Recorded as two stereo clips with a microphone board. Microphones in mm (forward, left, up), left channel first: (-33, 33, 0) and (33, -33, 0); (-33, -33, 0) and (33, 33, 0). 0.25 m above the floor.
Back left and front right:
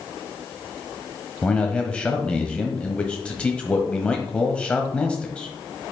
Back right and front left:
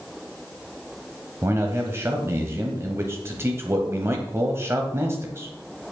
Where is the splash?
No splash in this recording.